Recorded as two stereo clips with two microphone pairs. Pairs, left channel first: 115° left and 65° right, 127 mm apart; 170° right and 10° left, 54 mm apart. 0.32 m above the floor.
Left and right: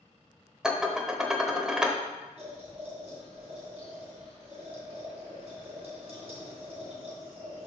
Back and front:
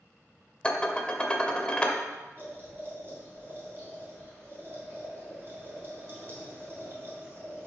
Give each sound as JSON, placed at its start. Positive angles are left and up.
{"t": 0.6, "sound": "dishes clattering", "azimuth_deg": -145, "distance_m": 0.7}
{"t": 2.4, "sound": "boiling", "azimuth_deg": -35, "distance_m": 2.5}